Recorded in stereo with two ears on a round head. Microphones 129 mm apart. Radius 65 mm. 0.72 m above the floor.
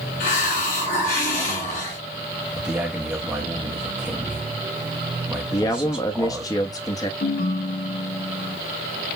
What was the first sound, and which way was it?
A hiss, 55° left (ahead or behind).